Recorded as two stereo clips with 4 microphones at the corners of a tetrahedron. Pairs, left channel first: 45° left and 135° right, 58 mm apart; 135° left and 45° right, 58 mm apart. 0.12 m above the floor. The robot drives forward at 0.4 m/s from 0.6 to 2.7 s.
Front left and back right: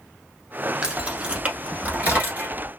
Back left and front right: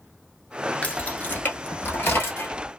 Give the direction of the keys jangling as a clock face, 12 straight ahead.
7 o'clock.